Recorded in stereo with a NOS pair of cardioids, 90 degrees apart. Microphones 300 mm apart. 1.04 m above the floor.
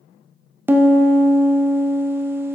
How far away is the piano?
About 0.8 m.